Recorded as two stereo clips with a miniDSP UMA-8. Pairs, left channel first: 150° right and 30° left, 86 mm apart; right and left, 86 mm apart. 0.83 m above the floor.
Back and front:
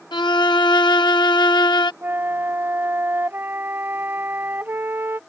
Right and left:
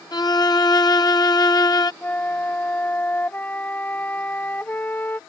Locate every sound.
0.1 s a violin: 125° right
2.0 s a flute: 30° right